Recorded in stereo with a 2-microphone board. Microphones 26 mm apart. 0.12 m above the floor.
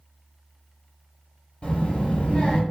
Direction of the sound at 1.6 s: 45° left (ahead or behind).